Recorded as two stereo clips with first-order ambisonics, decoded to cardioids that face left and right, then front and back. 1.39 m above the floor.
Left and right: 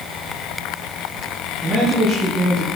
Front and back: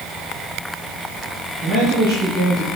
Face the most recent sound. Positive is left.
turn(degrees=-170)